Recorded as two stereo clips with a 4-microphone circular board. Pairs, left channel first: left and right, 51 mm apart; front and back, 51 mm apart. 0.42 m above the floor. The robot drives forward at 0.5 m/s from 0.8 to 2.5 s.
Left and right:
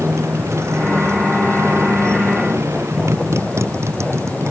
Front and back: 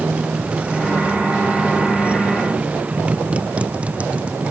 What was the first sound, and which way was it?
A motorcycle, 115° right.